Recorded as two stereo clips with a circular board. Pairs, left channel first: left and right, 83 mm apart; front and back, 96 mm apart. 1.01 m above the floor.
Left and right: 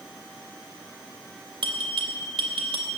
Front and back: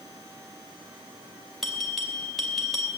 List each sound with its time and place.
1.6 s a bell: 90° right, 3 m